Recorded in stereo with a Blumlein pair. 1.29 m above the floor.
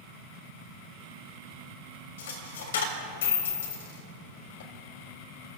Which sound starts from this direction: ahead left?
A dropped coin, at 2.2 s.